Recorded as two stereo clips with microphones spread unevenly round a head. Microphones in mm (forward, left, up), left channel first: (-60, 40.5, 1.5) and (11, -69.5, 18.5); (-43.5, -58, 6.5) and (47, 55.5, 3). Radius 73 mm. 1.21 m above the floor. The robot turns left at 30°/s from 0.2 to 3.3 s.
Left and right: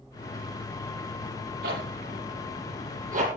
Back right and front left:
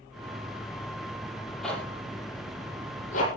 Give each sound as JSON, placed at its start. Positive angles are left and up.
{"t": 1.6, "sound": "a zipper", "azimuth_deg": -40, "distance_m": 6.5}